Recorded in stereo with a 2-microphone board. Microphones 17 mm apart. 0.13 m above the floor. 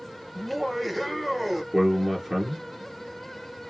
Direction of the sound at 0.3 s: 10° right (ahead or behind).